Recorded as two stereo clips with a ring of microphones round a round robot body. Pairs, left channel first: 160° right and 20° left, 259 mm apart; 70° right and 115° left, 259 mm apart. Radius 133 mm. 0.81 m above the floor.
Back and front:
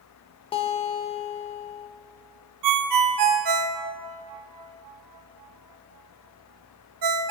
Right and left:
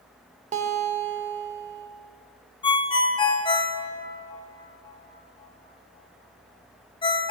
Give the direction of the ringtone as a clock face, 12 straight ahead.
12 o'clock.